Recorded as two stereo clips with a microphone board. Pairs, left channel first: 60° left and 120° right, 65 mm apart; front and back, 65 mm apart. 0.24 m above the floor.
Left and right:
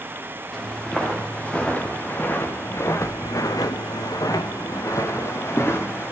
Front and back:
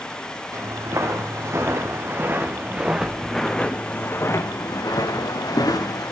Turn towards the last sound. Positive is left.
turn(degrees=5)